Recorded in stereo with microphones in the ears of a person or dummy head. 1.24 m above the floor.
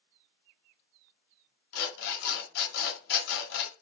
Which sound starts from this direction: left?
An alarm clock, at 1.7 s.